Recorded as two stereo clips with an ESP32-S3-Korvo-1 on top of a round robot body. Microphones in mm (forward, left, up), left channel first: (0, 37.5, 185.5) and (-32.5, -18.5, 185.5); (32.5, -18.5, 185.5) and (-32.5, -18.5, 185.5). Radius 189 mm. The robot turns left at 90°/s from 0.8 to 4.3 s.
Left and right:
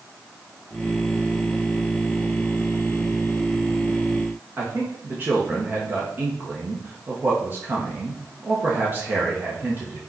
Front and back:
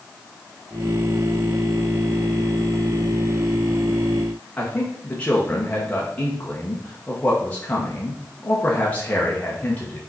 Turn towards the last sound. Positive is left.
turn(degrees=-65)